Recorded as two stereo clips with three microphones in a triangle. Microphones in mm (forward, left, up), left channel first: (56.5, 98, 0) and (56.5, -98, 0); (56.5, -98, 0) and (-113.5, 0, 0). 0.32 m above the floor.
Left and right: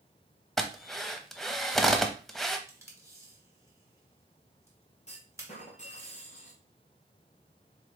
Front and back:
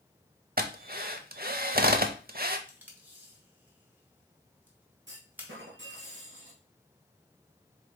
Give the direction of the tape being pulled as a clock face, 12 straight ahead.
5 o'clock.